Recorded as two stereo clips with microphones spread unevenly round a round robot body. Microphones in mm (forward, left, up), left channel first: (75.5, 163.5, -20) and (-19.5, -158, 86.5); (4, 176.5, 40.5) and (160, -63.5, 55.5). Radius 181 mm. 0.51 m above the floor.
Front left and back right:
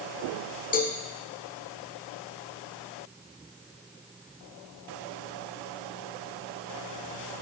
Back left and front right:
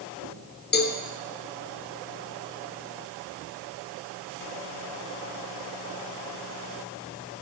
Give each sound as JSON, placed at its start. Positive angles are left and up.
{"t": 0.7, "sound": "a cowbell", "azimuth_deg": 90, "distance_m": 1.1}